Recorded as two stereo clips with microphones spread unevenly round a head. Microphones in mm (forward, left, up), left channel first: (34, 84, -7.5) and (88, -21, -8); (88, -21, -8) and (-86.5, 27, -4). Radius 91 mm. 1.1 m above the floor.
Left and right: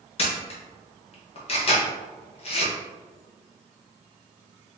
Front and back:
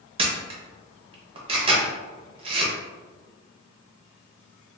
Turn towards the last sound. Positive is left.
turn(degrees=110)